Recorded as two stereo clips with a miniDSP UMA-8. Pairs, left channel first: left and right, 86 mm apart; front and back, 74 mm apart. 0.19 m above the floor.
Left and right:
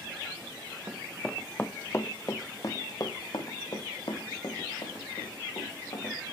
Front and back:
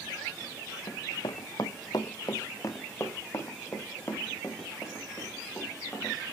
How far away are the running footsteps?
About 0.7 m.